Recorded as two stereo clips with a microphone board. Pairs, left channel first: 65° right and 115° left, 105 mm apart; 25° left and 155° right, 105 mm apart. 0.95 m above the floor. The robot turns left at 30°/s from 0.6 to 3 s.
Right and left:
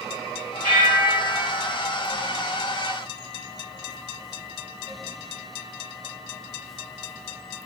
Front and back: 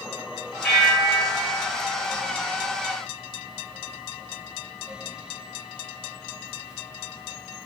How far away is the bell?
About 0.9 m.